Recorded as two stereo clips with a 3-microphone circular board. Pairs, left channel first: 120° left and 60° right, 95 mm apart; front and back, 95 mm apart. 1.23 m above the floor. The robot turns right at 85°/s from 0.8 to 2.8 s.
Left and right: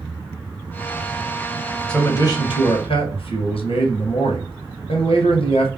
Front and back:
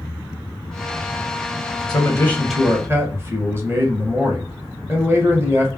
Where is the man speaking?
40° left, 0.9 m; by 5.7 s 115° left, 0.9 m.